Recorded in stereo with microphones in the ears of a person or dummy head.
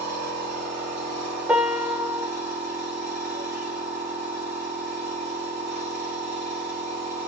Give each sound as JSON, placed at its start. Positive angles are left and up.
{"t": 0.0, "sound": "a machine running", "side_deg": -45, "distance_m": 2.5}
{"t": 1.5, "sound": "a piano", "side_deg": -5, "distance_m": 0.7}